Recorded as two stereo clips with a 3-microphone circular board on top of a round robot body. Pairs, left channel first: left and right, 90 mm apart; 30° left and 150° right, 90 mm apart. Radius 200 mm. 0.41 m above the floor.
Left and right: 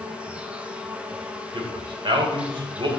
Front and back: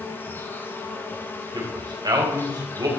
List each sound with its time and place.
0.0 s an insect: 20° right, 1.5 m
1.5 s a man speaking: 110° right, 3 m